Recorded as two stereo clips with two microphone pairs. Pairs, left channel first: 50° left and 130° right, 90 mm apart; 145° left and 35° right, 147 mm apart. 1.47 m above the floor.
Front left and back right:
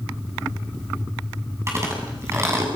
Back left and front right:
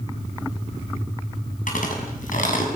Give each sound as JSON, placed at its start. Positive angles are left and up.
{"t": 1.7, "sound": "chewing", "azimuth_deg": 170, "distance_m": 7.0}